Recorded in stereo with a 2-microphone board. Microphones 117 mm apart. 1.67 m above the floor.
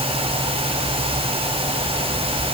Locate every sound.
Only background noise.